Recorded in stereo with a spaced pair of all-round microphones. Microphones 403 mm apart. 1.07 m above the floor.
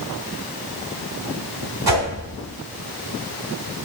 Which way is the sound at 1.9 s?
70° right (ahead or behind).